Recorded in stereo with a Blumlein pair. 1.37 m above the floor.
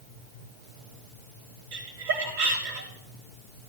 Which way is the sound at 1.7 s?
55° right.